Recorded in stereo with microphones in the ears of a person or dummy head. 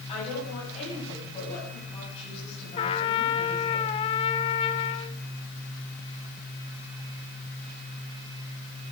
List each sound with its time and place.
0.1 s a woman speaking: 35° left (ahead or behind), 7.5 m
2.8 s a trumpet: 30° left (ahead or behind), 0.7 m